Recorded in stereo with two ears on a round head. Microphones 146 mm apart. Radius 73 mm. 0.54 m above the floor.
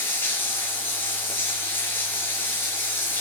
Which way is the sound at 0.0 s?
10° left (ahead or behind).